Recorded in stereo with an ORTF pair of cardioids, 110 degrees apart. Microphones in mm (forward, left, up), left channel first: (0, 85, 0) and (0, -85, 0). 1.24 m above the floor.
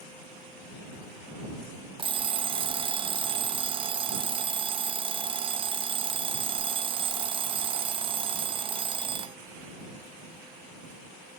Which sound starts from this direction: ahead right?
An alarm clock, at 2.0 s.